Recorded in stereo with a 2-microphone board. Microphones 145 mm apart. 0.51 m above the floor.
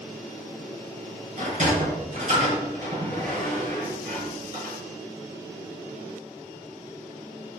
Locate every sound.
1.4 s a sliding door: 55° right (ahead or behind), 4 m